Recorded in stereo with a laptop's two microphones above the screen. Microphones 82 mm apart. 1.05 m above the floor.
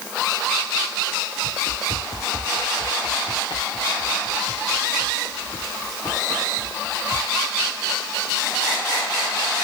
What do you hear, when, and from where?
1.4 s running footsteps: 85° left; by 7.3 s 75° left (ahead or behind)